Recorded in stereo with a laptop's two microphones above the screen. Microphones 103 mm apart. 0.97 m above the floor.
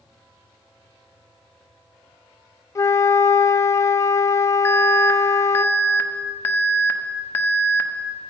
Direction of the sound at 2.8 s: 30° left (ahead or behind).